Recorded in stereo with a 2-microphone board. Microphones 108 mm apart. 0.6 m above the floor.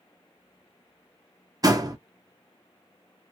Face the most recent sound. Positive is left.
turn(degrees=-35)  # may be behind; listen again after turning